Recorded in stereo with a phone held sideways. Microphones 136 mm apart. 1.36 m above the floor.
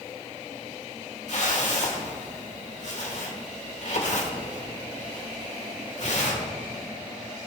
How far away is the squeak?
I don't hear a squeak.